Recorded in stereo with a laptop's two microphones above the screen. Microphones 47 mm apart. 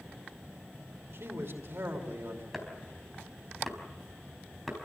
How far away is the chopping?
About 4.5 m.